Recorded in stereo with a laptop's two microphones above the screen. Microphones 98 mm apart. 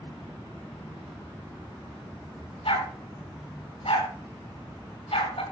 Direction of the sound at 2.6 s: 70° left (ahead or behind).